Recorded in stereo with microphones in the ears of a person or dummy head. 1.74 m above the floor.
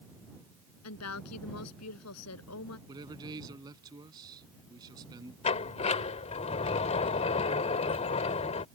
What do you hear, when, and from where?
0.8 s a woman speaking: 85° left
2.9 s a man speaking: 20° right (ahead or behind)
5.4 s a sliding door: 25° left (ahead or behind)